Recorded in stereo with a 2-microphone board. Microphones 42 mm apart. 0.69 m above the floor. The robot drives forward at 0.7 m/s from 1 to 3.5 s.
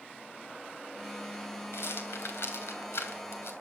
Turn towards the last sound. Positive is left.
turn(degrees=75)  # may be behind; listen again after turning